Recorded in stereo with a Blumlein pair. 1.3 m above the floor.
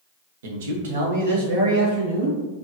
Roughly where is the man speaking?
Ahead right.